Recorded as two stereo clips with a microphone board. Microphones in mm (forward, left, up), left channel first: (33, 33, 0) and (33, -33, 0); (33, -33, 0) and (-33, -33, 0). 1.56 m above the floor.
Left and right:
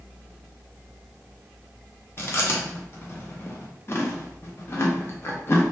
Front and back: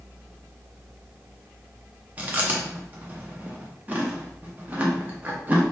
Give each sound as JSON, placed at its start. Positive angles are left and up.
{"t": 2.2, "sound": "chewing", "azimuth_deg": 125, "distance_m": 0.5}